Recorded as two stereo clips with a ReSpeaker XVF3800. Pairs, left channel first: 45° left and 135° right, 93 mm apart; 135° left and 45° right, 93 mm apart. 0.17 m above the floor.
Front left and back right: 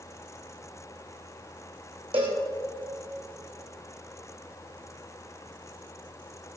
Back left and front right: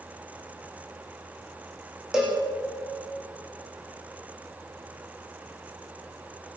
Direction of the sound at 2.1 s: 130° right.